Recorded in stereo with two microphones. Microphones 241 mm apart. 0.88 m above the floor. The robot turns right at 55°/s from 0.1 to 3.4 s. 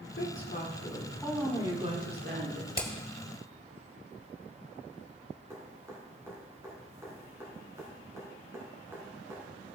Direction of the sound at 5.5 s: 10° right (ahead or behind).